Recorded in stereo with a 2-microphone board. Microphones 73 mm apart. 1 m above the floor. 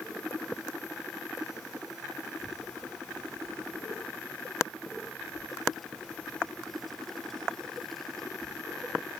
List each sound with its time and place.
2.4 s a child speaking: centre (ahead or behind); by 9.1 s 5° left (ahead or behind)